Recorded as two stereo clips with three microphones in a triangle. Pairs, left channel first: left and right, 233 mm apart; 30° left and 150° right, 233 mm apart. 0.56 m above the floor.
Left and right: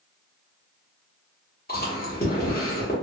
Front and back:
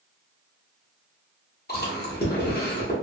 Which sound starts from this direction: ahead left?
Chewing, at 1.7 s.